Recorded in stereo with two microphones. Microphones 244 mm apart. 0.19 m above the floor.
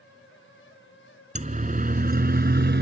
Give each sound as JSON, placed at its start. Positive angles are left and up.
{"t": 1.4, "sound": "a siren", "side_deg": -30}